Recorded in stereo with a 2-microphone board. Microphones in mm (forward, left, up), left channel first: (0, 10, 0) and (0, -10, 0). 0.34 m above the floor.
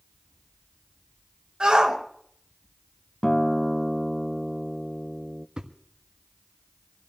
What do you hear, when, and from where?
1.6 s a shout: 45° right (ahead or behind), 3.5 m
3.2 s a guitar: 25° left (ahead or behind), 0.6 m
5.6 s a thud: 55° right (ahead or behind), 1.3 m